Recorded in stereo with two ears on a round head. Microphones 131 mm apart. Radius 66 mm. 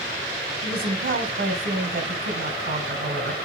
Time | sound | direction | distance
0.6 | a woman speaking | 70° right (ahead or behind) | 3 m